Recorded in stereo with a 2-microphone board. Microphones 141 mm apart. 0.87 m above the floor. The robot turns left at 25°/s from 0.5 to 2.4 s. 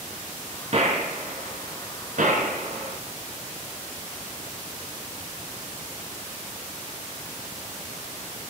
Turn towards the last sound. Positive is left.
turn(degrees=-75)  # may be behind; listen again after turning